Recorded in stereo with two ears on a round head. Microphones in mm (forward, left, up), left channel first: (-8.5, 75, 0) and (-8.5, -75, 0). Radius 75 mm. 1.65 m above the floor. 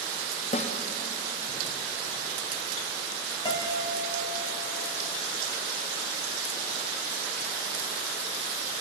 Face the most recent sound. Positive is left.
turn(degrees=30)  # may be behind; listen again after turning